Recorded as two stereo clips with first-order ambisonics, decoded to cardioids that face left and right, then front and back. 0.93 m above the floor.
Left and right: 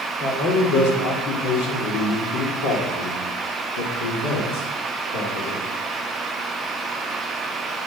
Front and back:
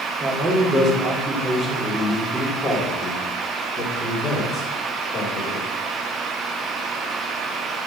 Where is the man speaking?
120° left, 3 m; by 5.6 s 65° left, 3 m.